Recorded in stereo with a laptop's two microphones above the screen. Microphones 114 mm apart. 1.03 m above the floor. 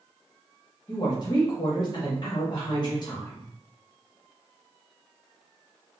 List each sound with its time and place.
0.9 s a woman speaking: 40° left (ahead or behind), 1.1 m